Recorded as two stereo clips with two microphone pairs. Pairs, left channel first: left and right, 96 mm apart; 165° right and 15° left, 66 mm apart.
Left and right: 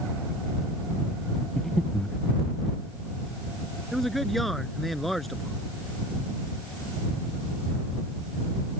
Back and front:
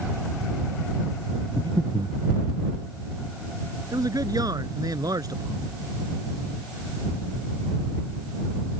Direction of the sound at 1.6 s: 10° left.